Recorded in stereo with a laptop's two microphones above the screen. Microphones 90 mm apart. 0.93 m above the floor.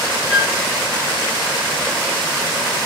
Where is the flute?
10° right (ahead or behind), 3 m.